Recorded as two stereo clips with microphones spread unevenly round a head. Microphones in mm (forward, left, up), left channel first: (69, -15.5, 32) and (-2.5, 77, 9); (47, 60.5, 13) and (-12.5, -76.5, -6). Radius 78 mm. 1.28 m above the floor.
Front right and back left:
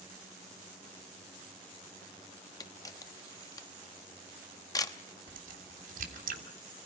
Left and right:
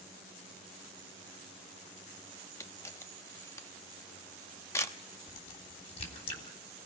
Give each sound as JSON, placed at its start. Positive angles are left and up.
{"t": 2.6, "sound": "a camera shutter", "azimuth_deg": 0, "distance_m": 1.1}
{"t": 5.3, "sound": "a crack", "azimuth_deg": 120, "distance_m": 3.5}